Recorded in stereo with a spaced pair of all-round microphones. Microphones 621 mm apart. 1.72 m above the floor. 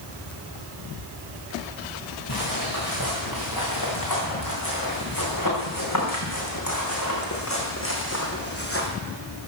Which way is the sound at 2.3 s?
35° left (ahead or behind).